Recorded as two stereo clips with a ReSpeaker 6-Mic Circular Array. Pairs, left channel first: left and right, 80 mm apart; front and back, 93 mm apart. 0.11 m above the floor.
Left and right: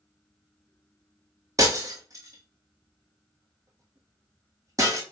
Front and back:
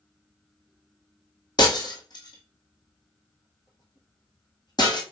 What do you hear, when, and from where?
1.6 s breaking glass: 40° right, 1.5 m